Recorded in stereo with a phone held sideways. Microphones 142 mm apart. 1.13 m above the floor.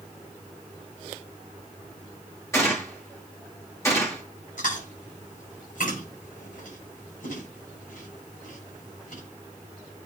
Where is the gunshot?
20° left (ahead or behind), 2.5 m.